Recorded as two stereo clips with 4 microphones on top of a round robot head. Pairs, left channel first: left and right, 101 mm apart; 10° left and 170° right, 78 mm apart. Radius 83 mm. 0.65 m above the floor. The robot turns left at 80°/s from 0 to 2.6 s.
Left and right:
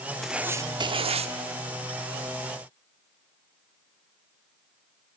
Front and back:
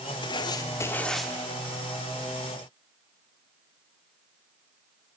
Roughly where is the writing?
Ahead.